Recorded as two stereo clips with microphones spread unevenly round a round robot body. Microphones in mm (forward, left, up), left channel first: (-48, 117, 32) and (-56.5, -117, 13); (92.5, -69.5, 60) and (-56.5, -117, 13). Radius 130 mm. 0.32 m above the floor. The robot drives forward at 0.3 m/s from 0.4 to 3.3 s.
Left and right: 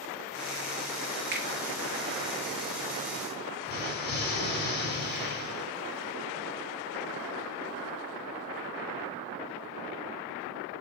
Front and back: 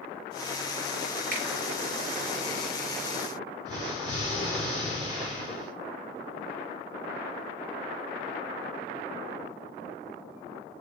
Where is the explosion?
135° left, 2.5 m.